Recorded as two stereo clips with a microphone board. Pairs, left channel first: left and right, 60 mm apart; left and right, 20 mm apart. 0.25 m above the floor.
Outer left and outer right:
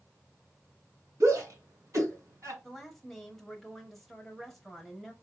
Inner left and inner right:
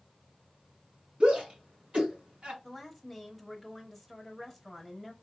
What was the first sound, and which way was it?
A shout, 60° right (ahead or behind).